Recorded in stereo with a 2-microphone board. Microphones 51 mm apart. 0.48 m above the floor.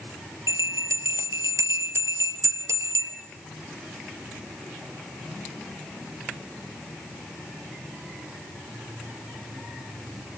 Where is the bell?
80° right, 2.5 m.